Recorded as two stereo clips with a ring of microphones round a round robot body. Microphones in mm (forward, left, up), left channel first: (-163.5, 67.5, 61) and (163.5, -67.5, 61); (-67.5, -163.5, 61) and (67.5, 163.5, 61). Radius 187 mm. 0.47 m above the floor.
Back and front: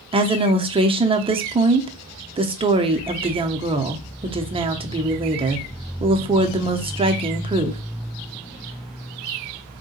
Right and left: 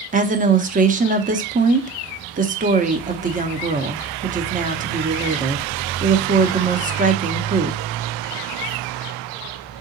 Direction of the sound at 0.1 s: 35° left.